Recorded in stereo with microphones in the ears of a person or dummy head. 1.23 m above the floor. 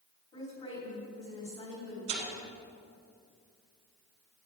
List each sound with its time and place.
0.3 s a woman speaking: 25° left (ahead or behind), 3 m
2.1 s tearing paper: 75° right (ahead or behind), 3.5 m